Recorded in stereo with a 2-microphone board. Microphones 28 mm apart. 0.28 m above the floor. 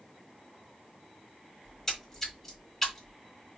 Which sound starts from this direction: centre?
A splash, at 1.6 s.